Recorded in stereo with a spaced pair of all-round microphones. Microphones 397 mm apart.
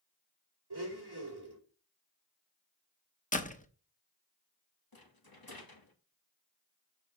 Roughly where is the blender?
Right.